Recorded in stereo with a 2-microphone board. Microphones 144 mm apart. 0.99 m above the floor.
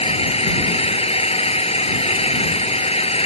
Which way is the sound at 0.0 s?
45° left (ahead or behind).